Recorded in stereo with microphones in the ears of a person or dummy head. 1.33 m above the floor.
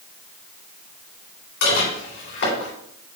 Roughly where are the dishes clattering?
Left.